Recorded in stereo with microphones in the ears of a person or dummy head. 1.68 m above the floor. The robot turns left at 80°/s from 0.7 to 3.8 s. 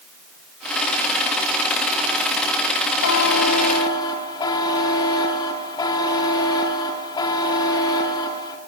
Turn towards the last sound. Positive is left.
turn(degrees=15)